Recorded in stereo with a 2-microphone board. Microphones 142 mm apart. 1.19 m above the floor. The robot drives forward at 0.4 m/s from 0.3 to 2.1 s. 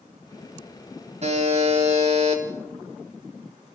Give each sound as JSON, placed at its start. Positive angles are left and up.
{"t": 1.2, "sound": "a buzzer", "side_deg": -50, "distance_m": 4.0}